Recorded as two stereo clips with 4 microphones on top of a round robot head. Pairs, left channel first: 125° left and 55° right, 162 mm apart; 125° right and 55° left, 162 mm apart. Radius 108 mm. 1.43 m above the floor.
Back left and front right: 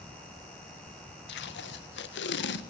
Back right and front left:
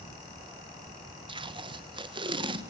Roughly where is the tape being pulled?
Behind left.